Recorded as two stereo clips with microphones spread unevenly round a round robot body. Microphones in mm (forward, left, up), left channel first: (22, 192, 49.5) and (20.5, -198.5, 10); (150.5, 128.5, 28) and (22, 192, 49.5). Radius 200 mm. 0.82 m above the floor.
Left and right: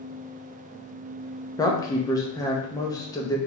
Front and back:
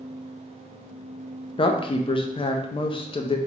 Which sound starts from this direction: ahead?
A woman speaking, at 1.6 s.